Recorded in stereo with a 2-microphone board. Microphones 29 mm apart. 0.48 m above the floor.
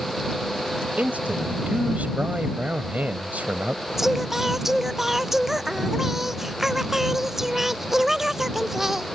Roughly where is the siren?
I don't hear a siren.